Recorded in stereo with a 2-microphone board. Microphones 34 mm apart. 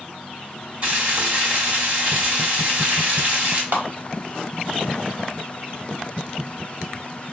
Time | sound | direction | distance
0.8 | frying | 40° right (ahead or behind) | 1.4 m
3.7 | a clap | 60° right (ahead or behind) | 1.2 m